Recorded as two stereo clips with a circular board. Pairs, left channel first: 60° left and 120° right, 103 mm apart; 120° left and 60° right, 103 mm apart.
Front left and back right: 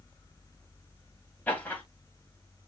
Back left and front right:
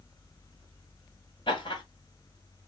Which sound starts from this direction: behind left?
Laughter, at 1.5 s.